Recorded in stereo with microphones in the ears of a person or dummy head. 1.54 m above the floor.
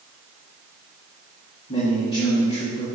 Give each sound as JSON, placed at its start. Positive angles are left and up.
{"t": 1.7, "sound": "a man speaking", "side_deg": 35, "distance_m": 2.0}